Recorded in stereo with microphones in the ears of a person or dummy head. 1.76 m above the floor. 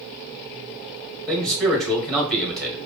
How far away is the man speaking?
About 1.8 m.